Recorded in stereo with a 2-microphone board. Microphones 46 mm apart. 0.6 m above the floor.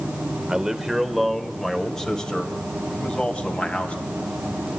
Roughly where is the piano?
I don't hear a piano.